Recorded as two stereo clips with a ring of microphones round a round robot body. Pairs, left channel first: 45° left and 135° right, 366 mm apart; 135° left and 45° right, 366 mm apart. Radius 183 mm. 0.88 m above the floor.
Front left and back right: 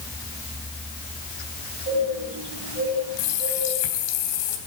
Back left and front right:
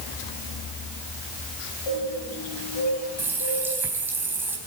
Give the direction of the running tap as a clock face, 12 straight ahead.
11 o'clock.